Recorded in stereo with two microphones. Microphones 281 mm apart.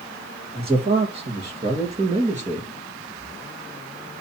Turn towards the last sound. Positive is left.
turn(degrees=-25)  # may be behind; listen again after turning